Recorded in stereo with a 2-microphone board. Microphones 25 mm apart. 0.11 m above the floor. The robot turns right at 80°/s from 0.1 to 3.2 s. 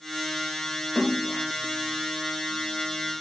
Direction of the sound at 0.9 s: 50° right.